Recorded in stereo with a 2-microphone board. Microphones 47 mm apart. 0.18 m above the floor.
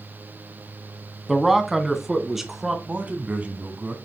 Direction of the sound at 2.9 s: 30° right (ahead or behind).